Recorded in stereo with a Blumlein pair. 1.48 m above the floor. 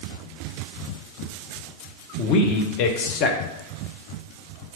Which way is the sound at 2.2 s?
40° left.